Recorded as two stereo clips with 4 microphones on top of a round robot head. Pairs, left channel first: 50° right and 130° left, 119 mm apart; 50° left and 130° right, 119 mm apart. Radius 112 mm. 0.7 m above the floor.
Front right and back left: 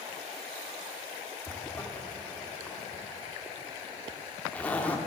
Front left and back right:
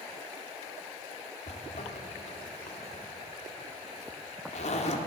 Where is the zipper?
30° left, 1.9 m.